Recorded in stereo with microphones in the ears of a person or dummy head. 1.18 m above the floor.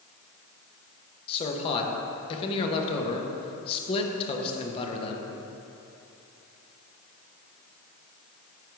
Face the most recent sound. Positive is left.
turn(degrees=35)  # may be behind; listen again after turning